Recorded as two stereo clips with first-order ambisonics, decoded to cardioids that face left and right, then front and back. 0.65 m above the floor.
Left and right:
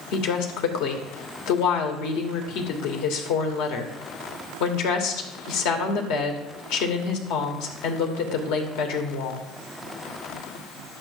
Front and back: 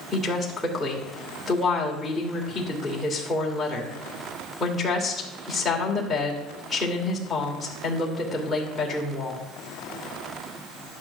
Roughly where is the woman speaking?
Left.